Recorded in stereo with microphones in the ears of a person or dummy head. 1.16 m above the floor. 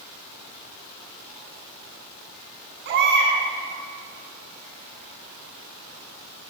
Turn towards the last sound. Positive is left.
turn(degrees=-55)  # may be behind; listen again after turning